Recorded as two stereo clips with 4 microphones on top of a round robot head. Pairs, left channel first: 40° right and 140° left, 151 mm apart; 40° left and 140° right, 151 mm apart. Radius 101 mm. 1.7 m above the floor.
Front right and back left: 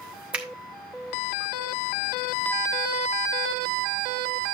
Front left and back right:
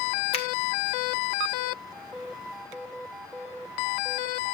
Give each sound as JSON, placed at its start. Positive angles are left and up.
{"t": 0.3, "sound": "a finger snap", "azimuth_deg": 60, "distance_m": 0.5}